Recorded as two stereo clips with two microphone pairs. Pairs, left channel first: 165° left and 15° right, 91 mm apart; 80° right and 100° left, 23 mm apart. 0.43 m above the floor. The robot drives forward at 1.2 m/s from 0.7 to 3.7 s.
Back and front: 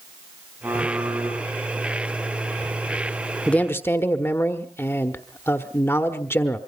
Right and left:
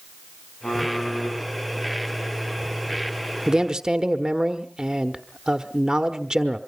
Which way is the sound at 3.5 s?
95° left.